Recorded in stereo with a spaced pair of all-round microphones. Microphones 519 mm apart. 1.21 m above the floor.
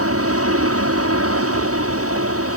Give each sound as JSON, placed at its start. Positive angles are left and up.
{"t": 0.0, "sound": "an aircraft", "side_deg": -25}